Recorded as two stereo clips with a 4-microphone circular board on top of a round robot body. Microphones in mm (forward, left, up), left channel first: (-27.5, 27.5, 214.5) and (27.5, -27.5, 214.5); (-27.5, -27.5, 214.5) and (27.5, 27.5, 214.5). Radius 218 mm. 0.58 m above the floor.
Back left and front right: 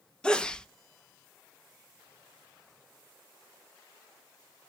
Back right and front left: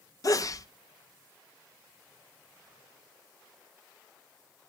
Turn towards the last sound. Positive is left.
turn(degrees=-150)